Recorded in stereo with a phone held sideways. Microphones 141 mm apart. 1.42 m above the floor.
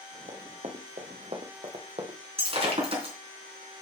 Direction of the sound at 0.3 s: 50° right (ahead or behind).